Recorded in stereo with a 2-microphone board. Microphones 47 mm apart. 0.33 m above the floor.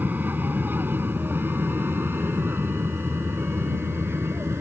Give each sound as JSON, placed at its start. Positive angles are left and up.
{"t": 0.0, "sound": "an aircraft", "side_deg": -40}